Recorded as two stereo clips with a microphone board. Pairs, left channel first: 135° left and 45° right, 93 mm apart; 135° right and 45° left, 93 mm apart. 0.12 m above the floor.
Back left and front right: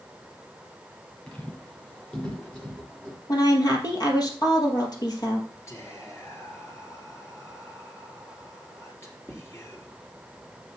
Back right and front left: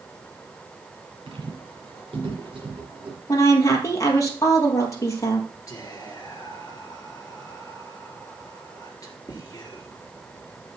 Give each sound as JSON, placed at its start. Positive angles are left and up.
{"t": 1.3, "sound": "footsteps", "azimuth_deg": 60, "distance_m": 5.0}
{"t": 3.3, "sound": "a woman speaking", "azimuth_deg": 175, "distance_m": 2.5}
{"t": 5.7, "sound": "whispering", "azimuth_deg": -175, "distance_m": 2.5}